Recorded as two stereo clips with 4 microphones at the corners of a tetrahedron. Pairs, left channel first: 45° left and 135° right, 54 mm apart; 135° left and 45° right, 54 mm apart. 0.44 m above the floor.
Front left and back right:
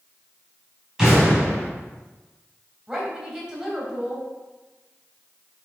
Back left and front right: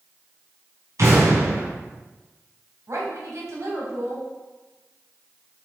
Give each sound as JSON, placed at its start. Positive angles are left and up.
{"t": 1.0, "sound": "an explosion", "azimuth_deg": -60, "distance_m": 3.5}
{"t": 2.9, "sound": "a woman speaking", "azimuth_deg": -60, "distance_m": 2.5}